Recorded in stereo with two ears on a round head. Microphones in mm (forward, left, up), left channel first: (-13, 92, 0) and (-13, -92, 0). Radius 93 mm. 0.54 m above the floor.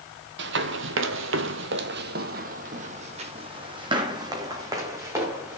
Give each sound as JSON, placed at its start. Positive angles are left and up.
{"t": 0.4, "sound": "running footsteps", "side_deg": -60, "distance_m": 1.2}